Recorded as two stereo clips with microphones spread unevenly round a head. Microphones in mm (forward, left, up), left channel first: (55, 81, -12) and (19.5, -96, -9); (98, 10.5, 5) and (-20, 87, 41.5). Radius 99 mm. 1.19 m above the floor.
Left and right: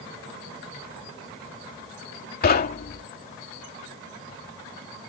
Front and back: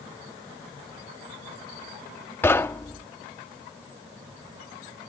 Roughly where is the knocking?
Ahead left.